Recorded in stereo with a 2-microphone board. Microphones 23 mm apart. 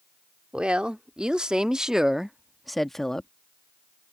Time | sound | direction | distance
0.5 | a woman speaking | 50° right (ahead or behind) | ?